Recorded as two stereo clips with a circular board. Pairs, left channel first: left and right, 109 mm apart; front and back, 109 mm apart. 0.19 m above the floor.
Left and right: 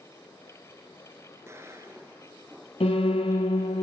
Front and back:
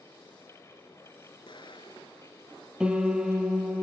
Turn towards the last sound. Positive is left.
turn(degrees=100)